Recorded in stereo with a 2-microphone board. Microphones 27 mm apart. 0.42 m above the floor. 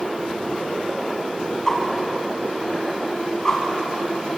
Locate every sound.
1.7 s a whoosh: 25° left (ahead or behind), 4 m